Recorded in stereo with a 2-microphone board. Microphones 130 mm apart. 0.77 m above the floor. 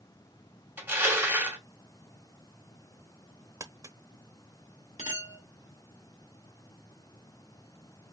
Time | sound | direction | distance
0.8 | crushing | 15° right (ahead or behind) | 2 m
3.6 | crumpling | 25° right (ahead or behind) | 0.8 m
5.0 | a clink | 70° left (ahead or behind) | 2.5 m